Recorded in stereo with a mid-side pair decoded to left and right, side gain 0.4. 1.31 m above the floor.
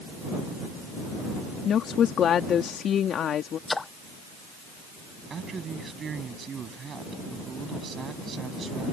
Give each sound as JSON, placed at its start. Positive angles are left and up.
{"t": 1.6, "sound": "a woman speaking", "azimuth_deg": 65}
{"t": 3.7, "sound": "a splash", "azimuth_deg": 25}
{"t": 5.3, "sound": "a man speaking", "azimuth_deg": -50}